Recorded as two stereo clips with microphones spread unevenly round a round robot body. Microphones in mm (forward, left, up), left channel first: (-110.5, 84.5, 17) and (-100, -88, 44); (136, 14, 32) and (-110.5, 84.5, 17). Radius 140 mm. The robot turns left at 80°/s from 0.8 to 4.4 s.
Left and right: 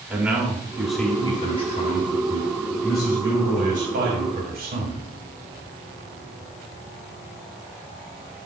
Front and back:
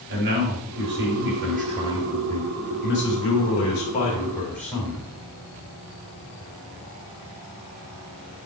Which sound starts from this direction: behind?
A man speaking, at 0.1 s.